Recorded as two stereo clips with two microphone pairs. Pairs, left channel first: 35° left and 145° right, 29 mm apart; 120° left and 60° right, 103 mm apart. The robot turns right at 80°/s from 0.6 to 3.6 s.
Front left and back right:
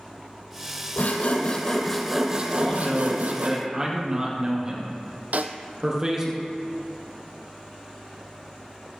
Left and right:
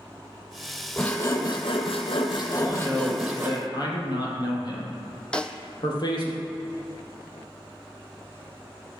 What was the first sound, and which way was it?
Sawing, 30° left.